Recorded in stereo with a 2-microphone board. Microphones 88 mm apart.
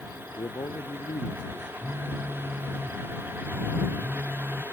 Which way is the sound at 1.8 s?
25° right (ahead or behind).